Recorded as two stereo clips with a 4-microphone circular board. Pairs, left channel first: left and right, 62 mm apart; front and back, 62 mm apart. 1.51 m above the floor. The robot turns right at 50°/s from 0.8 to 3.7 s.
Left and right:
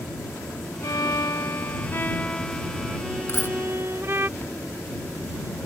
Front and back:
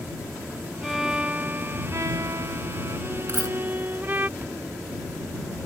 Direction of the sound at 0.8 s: 85° left.